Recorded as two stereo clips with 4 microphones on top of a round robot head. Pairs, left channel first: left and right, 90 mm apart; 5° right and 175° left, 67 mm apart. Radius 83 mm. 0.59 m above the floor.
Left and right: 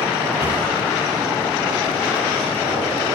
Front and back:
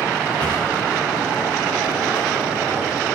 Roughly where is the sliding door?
Ahead right.